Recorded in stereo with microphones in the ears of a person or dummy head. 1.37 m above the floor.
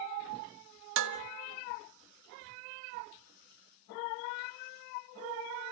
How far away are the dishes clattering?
About 1.2 m.